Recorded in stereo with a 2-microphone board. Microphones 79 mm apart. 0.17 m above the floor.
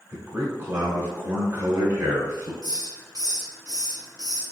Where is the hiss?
50° right (ahead or behind), 1.3 m.